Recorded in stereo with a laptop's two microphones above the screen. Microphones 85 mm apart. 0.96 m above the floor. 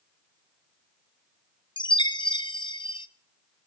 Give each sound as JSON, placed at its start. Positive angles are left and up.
{"t": 1.8, "sound": "a chime", "side_deg": 65, "distance_m": 0.6}